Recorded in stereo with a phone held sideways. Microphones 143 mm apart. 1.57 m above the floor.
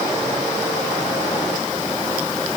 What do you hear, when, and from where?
Only background noise.